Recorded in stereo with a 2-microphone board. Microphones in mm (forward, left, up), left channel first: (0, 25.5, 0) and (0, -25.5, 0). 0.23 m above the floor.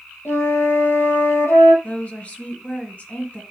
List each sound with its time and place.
0.2 s a flute: 75° left (ahead or behind), 3.5 m
1.8 s a woman speaking: 30° left (ahead or behind), 2 m